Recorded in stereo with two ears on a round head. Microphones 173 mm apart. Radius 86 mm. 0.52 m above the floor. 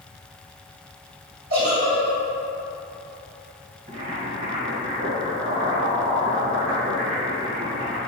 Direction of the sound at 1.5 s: 50° right (ahead or behind).